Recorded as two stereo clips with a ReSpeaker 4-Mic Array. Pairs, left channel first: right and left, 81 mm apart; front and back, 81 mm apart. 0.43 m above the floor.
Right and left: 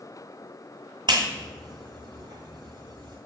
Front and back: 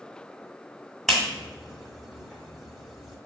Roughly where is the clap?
Left.